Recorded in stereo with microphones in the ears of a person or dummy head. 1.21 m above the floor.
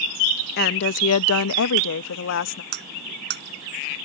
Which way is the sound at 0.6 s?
50° left (ahead or behind).